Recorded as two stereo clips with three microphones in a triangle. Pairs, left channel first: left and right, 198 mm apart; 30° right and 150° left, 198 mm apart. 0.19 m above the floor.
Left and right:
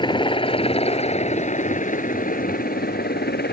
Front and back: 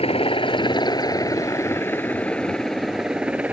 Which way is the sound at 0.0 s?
25° left.